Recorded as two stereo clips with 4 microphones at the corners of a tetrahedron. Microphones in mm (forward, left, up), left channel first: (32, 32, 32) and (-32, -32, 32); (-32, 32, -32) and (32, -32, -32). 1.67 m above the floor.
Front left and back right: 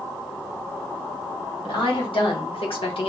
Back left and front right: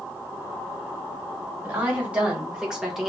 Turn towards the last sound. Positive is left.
turn(degrees=45)